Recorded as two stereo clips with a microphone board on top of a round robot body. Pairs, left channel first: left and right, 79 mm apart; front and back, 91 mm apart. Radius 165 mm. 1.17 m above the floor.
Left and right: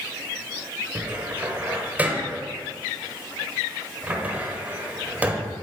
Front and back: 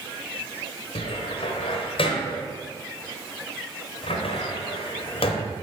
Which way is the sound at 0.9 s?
20° right.